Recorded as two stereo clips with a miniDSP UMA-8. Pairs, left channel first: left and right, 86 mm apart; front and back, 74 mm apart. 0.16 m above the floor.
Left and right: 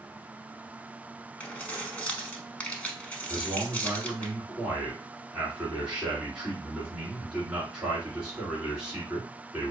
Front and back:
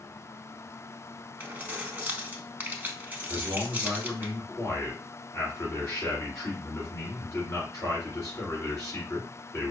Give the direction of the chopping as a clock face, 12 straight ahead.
I don't hear chopping.